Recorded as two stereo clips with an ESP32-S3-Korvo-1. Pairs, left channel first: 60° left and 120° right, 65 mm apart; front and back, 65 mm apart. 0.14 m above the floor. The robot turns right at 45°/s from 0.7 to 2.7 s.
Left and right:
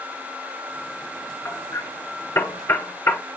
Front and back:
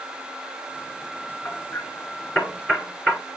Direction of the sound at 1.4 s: 25° left.